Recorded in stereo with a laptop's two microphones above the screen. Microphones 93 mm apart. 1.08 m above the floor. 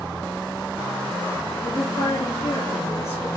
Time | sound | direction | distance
1.6 | a woman speaking | 75° left (ahead or behind) | 1.5 m